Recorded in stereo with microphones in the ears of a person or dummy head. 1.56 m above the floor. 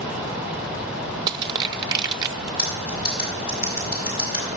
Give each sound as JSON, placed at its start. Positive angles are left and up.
{"t": 1.3, "sound": "crushing", "side_deg": -25, "distance_m": 0.5}
{"t": 2.6, "sound": "cutlery clinking", "side_deg": 45, "distance_m": 7.0}